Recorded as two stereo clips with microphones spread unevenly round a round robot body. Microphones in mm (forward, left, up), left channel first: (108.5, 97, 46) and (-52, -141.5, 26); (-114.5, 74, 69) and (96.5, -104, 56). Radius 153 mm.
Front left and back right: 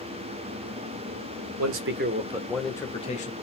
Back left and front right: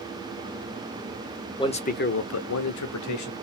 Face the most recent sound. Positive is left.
turn(degrees=120)